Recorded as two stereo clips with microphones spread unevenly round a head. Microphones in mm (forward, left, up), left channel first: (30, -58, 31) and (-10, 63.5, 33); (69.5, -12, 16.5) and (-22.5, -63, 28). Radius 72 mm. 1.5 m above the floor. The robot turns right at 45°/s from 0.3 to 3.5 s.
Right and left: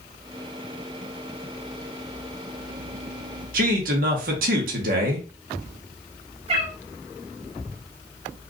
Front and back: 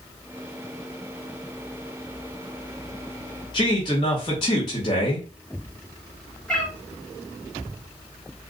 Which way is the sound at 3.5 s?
90° left.